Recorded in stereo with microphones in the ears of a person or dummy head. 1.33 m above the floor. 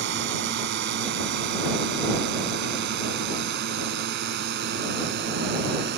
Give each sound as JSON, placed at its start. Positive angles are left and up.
{"t": 0.0, "sound": "a drone", "side_deg": -65}